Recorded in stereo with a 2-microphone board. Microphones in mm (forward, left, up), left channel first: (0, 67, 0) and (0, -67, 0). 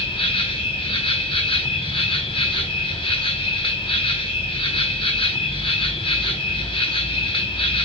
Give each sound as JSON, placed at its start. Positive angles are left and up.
{"t": 0.0, "sound": "an insect", "side_deg": 40, "distance_m": 0.8}